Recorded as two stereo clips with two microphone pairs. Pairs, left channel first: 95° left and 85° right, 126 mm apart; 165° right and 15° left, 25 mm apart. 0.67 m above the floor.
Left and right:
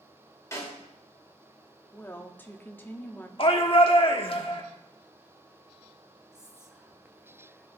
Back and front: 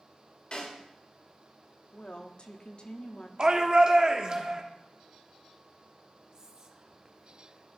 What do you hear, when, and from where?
0.5 s a snare drum: 160° left, 2.5 m
1.9 s a woman speaking: 165° left, 0.9 m
3.4 s a shout: 60° left, 1.2 m
6.3 s whispering: 10° right, 0.6 m